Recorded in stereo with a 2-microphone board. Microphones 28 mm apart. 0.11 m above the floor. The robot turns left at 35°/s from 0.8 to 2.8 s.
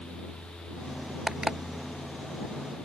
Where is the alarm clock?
30° right (ahead or behind); by 1.6 s 25° right (ahead or behind).